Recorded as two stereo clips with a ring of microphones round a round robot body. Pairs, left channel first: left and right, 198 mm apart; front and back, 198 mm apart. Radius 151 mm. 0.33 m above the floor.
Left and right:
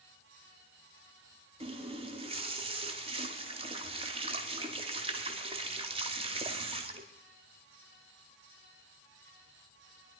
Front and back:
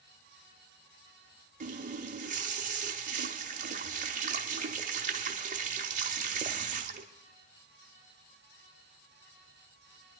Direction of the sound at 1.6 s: 145° right.